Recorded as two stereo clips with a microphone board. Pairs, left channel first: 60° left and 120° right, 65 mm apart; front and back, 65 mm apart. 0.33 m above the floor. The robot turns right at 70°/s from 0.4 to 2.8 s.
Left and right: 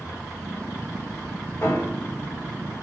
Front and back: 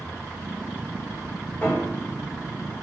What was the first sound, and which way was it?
A piano, 30° left.